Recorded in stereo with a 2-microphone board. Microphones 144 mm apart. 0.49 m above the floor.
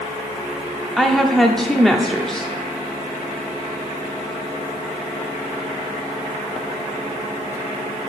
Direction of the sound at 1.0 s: 5° left (ahead or behind).